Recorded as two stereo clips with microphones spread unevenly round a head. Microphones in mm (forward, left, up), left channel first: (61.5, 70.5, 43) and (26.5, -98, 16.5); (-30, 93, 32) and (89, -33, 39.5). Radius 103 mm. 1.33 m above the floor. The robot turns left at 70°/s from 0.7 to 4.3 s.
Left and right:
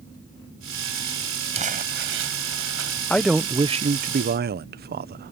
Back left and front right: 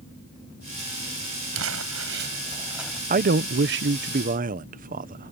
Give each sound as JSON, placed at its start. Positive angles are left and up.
{"t": 1.5, "sound": "crumpling", "azimuth_deg": -45}
{"t": 3.1, "sound": "a man speaking", "azimuth_deg": -5}